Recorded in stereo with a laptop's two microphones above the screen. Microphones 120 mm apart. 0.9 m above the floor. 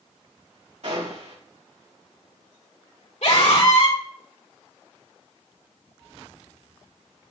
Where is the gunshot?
65° right (ahead or behind), 3.5 m.